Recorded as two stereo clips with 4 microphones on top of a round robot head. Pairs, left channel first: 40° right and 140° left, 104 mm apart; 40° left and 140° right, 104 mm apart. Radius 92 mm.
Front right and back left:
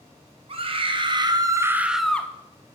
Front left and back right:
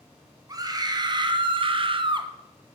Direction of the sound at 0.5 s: 165° left.